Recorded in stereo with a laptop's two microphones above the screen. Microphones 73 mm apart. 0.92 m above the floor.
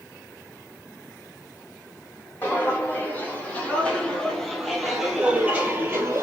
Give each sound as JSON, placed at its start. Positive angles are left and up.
{"t": 2.4, "sound": "footsteps", "side_deg": 25, "distance_m": 2.0}